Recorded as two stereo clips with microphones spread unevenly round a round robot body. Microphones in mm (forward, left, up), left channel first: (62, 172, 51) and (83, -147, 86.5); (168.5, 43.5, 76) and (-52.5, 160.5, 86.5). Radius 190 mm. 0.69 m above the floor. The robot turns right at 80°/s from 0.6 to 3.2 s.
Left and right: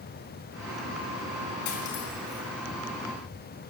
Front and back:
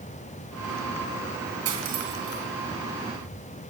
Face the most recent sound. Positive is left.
turn(degrees=-105)